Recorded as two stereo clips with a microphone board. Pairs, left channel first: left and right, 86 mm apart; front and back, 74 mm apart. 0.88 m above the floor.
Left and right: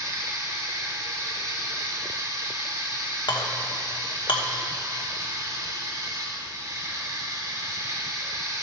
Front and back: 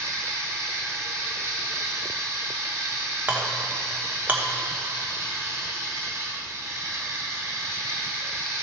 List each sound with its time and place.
0.0 s running water: 135° right, 1.6 m
3.3 s a clink: 115° left, 1.0 m